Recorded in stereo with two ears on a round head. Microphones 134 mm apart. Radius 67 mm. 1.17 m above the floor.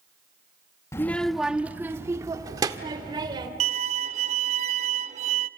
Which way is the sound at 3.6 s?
45° right (ahead or behind).